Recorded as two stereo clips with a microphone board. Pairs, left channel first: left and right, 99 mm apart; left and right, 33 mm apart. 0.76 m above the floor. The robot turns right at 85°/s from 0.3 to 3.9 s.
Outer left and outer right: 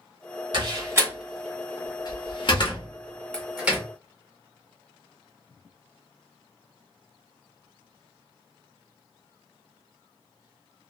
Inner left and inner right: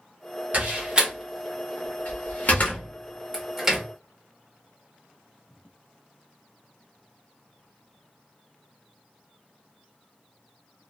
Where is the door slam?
50° right (ahead or behind), 0.9 m; by 3.8 s 25° right (ahead or behind), 0.9 m.